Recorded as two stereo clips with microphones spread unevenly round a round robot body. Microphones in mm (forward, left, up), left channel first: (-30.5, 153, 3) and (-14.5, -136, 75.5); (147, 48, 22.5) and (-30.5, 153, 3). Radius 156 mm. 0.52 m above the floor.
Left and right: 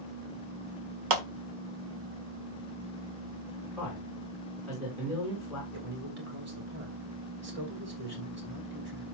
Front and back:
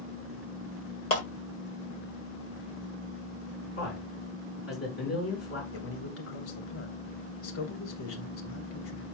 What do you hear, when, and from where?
1.1 s a clap: 105° right, 1.6 m
3.8 s a man speaking: 5° left, 6 m
5.7 s a man speaking: 30° right, 3 m